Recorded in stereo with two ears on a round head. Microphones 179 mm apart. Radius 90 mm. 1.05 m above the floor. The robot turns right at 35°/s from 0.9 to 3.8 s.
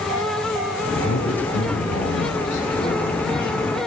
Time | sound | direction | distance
0.9 | a man speaking | 70° left | 7 m